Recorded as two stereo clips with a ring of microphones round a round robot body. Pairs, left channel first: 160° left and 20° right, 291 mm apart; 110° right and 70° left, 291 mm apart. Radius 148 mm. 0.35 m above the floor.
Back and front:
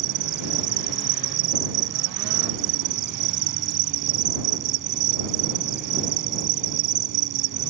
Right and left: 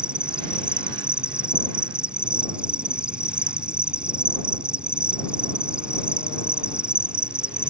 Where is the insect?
20° right.